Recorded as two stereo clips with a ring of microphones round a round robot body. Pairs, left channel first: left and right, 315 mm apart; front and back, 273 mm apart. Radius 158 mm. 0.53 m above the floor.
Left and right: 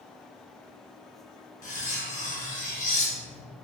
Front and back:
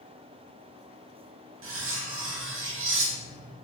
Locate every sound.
1.6 s cutlery clinking: 150° left, 0.6 m